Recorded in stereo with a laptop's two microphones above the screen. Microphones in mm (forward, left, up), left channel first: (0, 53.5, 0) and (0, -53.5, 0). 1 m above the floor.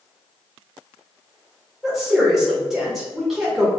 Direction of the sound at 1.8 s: Centre (ahead or behind).